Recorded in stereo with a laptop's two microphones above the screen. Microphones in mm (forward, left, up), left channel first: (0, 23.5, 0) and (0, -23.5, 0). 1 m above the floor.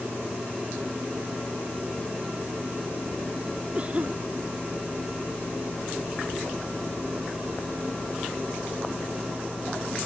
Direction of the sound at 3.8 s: 30° right (ahead or behind).